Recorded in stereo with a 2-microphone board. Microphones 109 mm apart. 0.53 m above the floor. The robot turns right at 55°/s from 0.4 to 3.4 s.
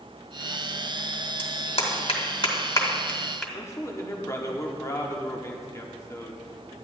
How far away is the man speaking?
About 1.1 m.